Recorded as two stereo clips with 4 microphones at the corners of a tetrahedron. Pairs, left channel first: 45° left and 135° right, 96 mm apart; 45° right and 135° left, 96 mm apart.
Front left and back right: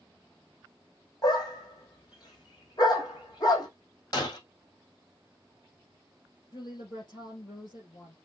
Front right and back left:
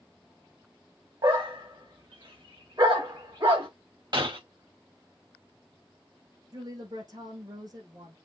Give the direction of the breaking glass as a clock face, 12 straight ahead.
9 o'clock.